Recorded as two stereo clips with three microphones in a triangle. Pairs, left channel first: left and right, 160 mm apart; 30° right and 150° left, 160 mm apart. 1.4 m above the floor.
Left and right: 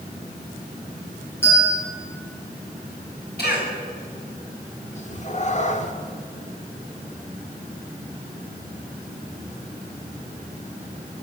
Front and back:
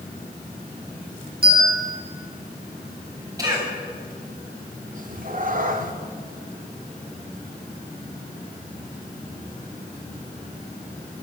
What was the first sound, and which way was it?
A bell, 165° left.